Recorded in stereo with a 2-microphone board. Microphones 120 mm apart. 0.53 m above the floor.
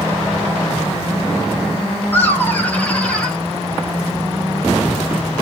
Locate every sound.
2.1 s laughter: 15° left (ahead or behind), 3 m; by 3.4 s 5° left (ahead or behind), 2.5 m